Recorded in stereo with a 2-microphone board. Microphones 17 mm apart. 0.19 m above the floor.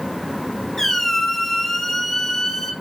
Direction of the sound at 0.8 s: 25° left (ahead or behind).